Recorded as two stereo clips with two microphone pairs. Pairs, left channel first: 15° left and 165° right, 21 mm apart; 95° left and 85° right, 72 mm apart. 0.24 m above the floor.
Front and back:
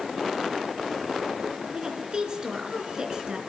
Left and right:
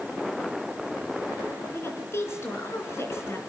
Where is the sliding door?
No sliding door in this recording.